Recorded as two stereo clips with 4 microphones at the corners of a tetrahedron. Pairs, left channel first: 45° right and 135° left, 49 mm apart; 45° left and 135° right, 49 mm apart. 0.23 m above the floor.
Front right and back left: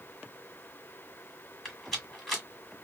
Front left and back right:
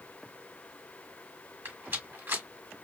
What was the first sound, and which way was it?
A rattle, 130° right.